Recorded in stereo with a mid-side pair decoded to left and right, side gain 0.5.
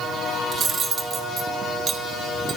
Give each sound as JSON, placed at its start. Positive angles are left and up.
{"t": 0.5, "sound": "cutlery clinking", "azimuth_deg": -40, "distance_m": 1.8}